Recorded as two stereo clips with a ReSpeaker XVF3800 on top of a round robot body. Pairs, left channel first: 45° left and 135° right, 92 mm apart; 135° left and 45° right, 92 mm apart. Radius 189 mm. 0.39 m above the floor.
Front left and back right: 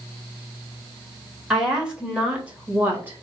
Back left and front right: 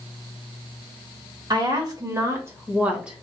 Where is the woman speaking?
55° right, 1.9 m; by 3.2 s 120° right, 1.4 m.